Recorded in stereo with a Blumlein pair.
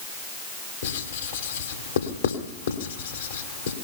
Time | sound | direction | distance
0.8 | writing | 65° left | 2.5 m